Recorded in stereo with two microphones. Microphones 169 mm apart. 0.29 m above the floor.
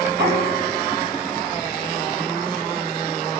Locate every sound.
0.1 s knocking: 80° right, 6.5 m